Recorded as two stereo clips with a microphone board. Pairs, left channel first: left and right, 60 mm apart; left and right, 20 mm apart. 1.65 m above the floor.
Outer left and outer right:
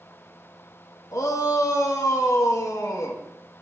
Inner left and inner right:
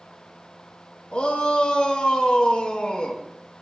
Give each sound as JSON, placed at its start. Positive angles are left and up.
{"t": 1.1, "sound": "a shout", "side_deg": 70, "distance_m": 2.0}